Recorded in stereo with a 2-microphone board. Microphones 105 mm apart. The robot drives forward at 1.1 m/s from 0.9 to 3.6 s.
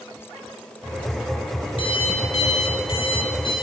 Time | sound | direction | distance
1.8 | an alarm clock | 55° left (ahead or behind) | 1.9 m